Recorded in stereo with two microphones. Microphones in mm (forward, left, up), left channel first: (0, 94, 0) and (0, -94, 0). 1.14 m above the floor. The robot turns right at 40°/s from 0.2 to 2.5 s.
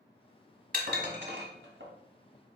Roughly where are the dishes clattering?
Right.